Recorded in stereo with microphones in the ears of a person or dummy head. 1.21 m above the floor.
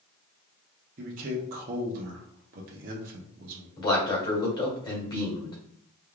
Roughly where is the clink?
I don't hear a clink.